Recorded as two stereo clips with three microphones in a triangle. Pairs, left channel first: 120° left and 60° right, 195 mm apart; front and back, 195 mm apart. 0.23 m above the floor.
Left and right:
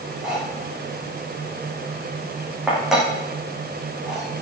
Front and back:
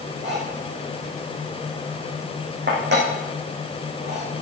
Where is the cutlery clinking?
145° right, 9.5 m.